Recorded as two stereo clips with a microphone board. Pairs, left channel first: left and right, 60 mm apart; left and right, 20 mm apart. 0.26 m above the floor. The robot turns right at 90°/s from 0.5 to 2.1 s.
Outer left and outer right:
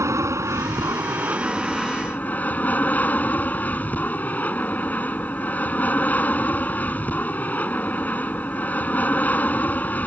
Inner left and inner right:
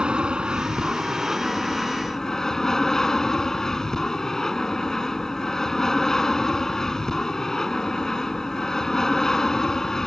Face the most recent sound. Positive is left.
turn(degrees=30)